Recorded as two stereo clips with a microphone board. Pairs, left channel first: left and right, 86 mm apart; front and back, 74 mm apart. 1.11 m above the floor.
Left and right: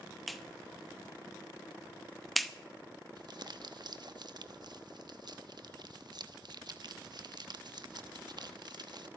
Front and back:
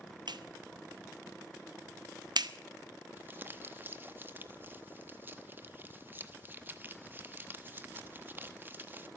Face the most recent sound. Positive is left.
turn(degrees=-120)